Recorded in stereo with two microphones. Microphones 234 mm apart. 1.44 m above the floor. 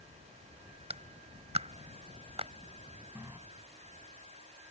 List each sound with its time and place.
0.9 s a clap: 25° right (ahead or behind)
3.1 s a running tap: 10° right (ahead or behind)